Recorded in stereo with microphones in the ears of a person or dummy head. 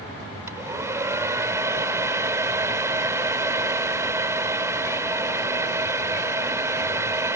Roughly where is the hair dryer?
Centre.